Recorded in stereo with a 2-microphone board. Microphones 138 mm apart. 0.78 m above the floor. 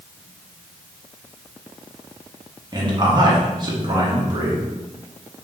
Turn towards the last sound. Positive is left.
turn(degrees=-30)  # may be behind; listen again after turning